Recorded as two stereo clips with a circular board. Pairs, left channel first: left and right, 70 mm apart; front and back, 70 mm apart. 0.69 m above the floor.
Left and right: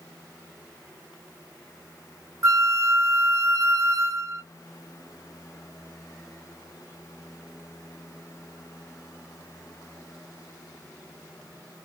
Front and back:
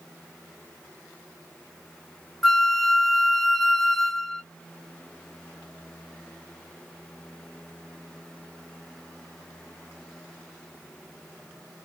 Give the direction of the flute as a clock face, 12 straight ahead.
3 o'clock.